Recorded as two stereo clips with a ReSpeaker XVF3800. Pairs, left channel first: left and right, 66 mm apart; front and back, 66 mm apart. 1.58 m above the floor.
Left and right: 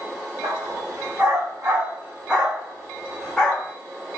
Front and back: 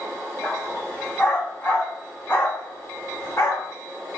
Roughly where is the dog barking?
Right.